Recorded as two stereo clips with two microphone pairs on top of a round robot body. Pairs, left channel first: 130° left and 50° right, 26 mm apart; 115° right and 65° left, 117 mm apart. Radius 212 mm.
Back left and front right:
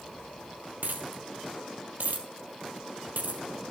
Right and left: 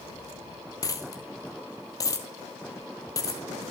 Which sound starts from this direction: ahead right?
A dropped coin, at 0.8 s.